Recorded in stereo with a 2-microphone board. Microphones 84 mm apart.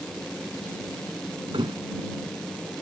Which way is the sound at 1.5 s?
80° right.